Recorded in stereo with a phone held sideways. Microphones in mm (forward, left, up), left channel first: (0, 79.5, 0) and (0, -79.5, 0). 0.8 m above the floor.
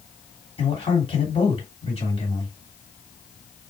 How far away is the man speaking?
About 2.5 m.